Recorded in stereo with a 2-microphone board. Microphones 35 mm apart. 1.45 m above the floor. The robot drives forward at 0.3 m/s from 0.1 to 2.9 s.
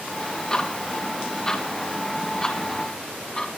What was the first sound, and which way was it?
Ticking, 20° left (ahead or behind).